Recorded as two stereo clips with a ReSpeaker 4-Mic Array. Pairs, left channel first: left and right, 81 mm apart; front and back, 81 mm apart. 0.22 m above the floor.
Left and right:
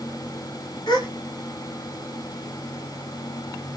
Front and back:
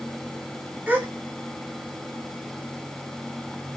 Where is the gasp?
115° left, 0.7 m.